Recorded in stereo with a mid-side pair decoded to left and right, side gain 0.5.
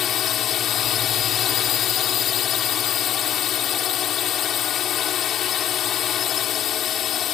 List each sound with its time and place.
0.0 s a drone: 60° left